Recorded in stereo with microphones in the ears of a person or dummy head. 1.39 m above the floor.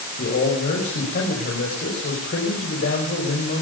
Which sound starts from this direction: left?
A man speaking, at 0.2 s.